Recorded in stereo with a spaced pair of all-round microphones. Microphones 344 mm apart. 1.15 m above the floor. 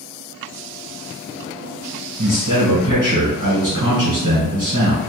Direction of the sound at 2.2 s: 65° right (ahead or behind).